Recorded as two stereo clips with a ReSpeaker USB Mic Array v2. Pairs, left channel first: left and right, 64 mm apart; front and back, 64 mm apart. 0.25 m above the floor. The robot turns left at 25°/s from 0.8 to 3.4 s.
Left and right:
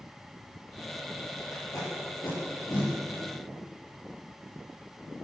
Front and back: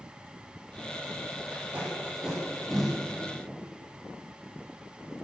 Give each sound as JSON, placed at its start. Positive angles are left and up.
{"t": 1.5, "sound": "tape being pulled", "azimuth_deg": 120, "distance_m": 8.0}